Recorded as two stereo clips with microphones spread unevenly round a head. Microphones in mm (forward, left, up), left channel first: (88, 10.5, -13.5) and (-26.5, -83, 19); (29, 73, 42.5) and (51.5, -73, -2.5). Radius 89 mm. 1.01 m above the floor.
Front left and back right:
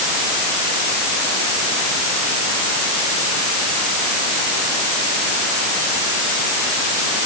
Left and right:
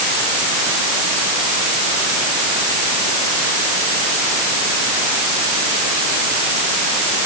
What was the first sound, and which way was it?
Only background noise.